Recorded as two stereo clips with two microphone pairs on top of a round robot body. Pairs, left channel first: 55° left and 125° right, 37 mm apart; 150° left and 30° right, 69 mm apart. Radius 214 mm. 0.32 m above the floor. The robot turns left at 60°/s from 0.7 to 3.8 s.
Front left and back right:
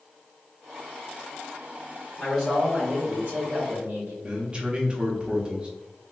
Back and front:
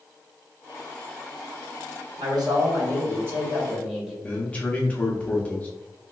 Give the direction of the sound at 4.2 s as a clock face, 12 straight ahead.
5 o'clock.